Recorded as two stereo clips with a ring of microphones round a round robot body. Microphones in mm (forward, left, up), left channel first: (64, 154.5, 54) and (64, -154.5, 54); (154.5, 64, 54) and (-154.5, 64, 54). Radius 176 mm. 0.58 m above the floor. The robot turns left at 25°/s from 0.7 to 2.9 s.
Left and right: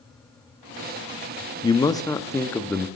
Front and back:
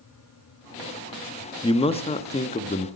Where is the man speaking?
40° left, 0.8 m; by 2.9 s 10° left, 0.8 m.